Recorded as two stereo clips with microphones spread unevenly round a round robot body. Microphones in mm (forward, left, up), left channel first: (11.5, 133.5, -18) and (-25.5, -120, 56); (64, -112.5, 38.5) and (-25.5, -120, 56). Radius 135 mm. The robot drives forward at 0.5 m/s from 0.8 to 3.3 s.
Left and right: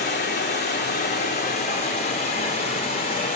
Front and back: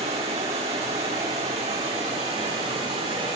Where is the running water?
145° left, 3.5 m; by 3.4 s 150° left, 4.5 m.